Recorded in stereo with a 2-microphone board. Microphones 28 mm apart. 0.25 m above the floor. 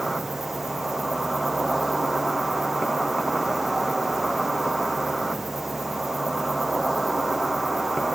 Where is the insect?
10° right (ahead or behind), 1.2 m.